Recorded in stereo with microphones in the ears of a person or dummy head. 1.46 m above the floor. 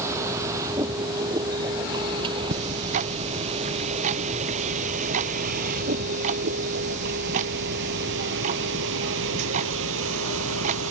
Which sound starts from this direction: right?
Ticking, at 2.5 s.